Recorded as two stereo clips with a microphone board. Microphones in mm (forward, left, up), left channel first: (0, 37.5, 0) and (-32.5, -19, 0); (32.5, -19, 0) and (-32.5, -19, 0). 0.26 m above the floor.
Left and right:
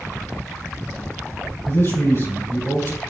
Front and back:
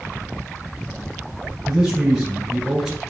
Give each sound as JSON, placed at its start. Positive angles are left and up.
{"t": 1.6, "sound": "a man speaking", "azimuth_deg": 95, "distance_m": 3.5}